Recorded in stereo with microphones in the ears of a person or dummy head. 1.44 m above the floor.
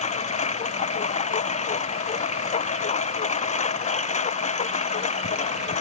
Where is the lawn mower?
35° left (ahead or behind).